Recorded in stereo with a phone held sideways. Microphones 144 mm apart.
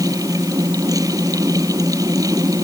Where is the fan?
25° right (ahead or behind).